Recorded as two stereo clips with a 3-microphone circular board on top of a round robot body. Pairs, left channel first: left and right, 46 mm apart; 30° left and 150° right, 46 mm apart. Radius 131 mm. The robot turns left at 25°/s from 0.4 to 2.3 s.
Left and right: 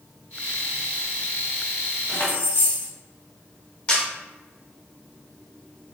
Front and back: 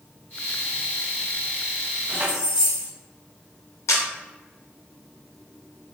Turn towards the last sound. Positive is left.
turn(degrees=25)